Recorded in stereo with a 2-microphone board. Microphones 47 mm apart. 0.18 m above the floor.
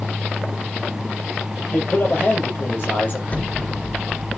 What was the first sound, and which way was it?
A man speaking, 45° left (ahead or behind).